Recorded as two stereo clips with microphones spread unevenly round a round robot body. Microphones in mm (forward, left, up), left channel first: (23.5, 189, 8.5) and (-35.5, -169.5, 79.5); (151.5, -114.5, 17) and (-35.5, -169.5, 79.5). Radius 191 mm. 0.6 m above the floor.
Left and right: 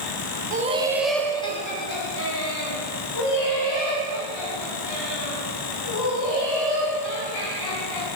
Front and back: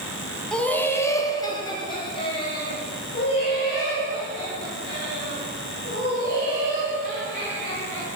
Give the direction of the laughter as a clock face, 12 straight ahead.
1 o'clock.